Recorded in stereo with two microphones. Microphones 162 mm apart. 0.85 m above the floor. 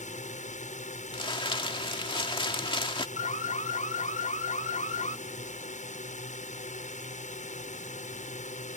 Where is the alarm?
55° left (ahead or behind).